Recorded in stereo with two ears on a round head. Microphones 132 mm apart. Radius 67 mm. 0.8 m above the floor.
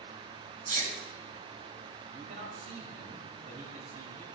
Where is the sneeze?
60° right (ahead or behind), 5.5 m.